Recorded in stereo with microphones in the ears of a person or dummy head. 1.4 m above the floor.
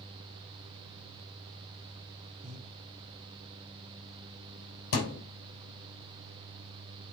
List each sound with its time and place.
2.4 s breathing: 45° right (ahead or behind), 1.2 m
4.9 s a thud: 60° left (ahead or behind), 2.5 m